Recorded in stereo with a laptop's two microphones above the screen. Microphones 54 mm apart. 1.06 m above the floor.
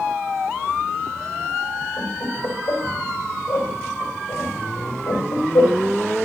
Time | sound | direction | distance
2.0 | laughter | 85° left | 5 m